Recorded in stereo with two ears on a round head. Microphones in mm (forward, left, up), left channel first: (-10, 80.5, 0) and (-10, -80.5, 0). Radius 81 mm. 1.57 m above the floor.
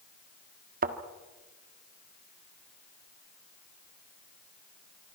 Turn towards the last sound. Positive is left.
turn(degrees=-50)  # may be behind; listen again after turning